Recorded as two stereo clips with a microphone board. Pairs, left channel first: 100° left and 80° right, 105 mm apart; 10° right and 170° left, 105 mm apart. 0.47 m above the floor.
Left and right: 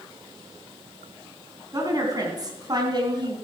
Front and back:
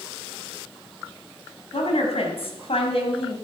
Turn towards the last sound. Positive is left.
turn(degrees=-35)